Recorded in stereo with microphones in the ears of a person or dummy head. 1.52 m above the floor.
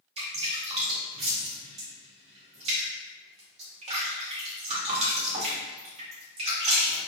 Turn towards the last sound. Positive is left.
turn(degrees=-30)  # may be behind; listen again after turning